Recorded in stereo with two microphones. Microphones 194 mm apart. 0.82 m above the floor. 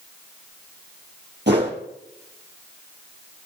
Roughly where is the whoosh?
Right.